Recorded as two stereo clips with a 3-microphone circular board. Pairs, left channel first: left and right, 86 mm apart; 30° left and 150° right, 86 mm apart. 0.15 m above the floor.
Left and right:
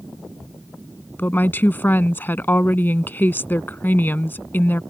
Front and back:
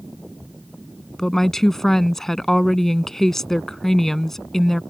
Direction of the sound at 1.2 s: 110° left.